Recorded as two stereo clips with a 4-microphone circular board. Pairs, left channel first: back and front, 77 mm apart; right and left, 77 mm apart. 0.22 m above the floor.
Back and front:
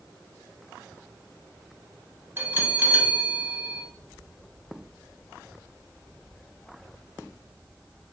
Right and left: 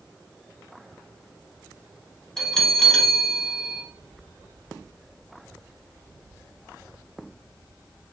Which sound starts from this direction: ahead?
A bell, at 2.4 s.